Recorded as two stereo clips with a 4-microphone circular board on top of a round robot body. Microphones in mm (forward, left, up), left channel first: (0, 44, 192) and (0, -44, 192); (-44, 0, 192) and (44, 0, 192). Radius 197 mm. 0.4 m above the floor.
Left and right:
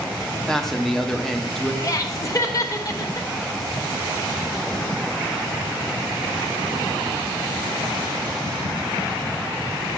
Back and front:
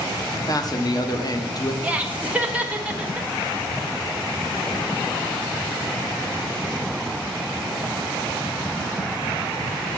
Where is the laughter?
65° left, 1.2 m.